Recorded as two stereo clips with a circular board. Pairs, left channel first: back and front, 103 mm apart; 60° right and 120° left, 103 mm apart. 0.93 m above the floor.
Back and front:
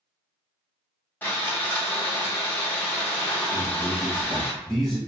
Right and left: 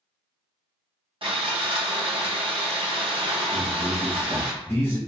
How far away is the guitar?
I don't hear a guitar.